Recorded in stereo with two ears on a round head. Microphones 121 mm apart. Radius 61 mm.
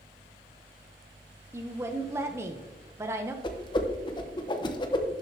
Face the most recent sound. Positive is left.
turn(degrees=35)  # may be behind; listen again after turning